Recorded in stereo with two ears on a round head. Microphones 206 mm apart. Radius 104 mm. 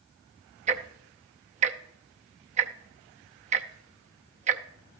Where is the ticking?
30° right (ahead or behind), 0.6 m.